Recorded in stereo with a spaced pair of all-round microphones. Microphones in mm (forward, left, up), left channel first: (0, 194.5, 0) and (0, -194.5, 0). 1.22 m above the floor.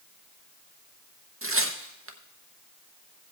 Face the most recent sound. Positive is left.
turn(degrees=-35)  # may be behind; listen again after turning